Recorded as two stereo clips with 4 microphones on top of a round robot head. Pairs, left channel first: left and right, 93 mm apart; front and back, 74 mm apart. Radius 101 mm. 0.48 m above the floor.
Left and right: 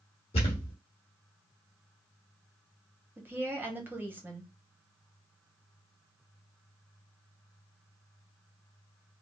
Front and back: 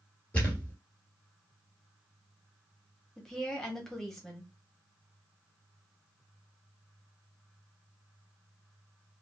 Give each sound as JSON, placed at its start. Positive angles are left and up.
{"t": 0.3, "sound": "a thud", "azimuth_deg": 70, "distance_m": 1.7}
{"t": 3.2, "sound": "a woman speaking", "azimuth_deg": -75, "distance_m": 1.3}